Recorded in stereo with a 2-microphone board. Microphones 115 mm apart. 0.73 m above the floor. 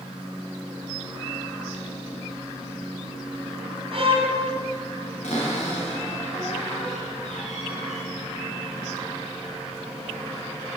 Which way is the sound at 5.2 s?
90° left.